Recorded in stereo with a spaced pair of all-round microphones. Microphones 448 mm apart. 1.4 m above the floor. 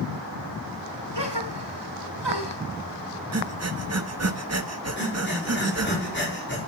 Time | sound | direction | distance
1.1 | a gasp | 60° right (ahead or behind) | 3.5 m
3.3 | breathing | 35° right (ahead or behind) | 0.9 m
5.0 | breathing | 25° left (ahead or behind) | 4.5 m